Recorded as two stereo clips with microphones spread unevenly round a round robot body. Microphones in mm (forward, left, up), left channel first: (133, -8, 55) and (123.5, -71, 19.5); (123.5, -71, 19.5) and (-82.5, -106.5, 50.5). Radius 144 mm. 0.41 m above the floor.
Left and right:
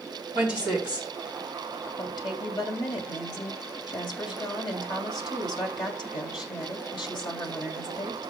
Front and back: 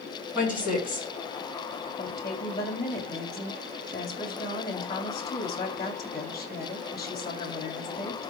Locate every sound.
0.3 s a woman speaking: 100° left, 4.5 m
2.0 s a woman speaking: 80° left, 2.5 m